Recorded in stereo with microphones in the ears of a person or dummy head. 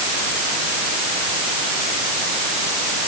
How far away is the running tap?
No running tap in this recording.